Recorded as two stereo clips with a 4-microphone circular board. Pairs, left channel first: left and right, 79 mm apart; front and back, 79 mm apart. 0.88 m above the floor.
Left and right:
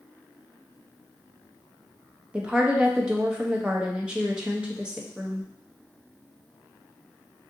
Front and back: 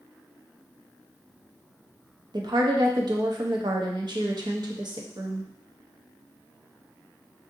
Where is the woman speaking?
165° right, 0.7 m.